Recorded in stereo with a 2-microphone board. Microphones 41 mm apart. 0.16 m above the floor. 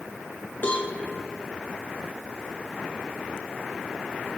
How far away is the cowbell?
About 3.5 m.